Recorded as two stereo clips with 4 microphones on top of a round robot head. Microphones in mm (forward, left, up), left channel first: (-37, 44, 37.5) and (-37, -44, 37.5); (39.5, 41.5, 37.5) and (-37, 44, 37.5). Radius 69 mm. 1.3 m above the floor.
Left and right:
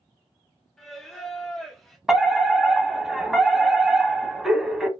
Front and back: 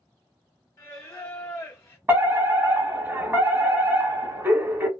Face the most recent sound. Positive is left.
turn(degrees=-170)